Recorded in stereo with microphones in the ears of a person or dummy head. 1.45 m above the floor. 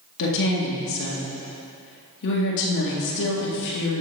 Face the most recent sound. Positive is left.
turn(degrees=60)  # may be behind; listen again after turning